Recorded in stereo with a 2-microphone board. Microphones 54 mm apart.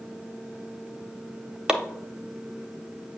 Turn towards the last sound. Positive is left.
turn(degrees=-15)  # may be behind; listen again after turning